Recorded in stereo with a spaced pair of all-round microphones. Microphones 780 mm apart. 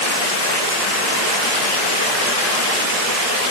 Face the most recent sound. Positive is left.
No sound to turn to.